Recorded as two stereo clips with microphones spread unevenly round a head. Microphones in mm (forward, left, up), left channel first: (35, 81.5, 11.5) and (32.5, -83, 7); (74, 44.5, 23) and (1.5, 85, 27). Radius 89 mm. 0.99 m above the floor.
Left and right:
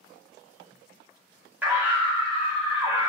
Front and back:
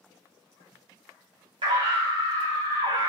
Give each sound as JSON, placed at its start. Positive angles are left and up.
{"t": 1.6, "sound": "a scream", "azimuth_deg": -170, "distance_m": 5.0}